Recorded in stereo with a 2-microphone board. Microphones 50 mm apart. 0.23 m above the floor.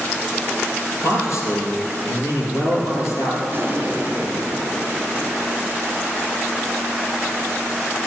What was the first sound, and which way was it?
A man speaking, 75° left (ahead or behind).